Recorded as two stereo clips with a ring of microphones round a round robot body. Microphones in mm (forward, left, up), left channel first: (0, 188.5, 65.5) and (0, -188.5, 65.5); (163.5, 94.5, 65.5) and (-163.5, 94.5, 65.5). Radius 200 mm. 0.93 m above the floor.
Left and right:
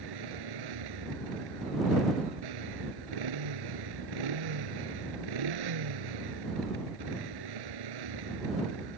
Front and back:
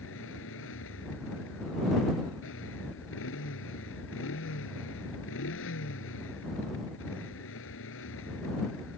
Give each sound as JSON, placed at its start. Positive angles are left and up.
{"t": 0.0, "sound": "a motorcycle", "azimuth_deg": -60}